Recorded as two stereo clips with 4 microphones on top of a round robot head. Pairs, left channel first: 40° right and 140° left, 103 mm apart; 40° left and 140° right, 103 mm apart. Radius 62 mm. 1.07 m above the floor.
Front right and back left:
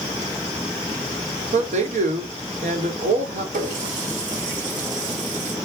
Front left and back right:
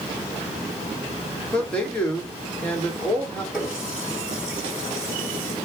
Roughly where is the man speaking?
Behind left.